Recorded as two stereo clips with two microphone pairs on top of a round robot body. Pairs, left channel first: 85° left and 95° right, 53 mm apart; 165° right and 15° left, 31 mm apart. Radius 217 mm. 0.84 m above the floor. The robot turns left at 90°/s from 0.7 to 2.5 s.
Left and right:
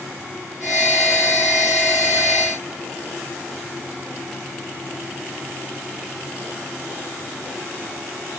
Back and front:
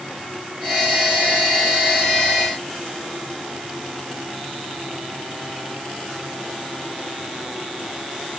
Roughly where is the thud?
No thud in this recording.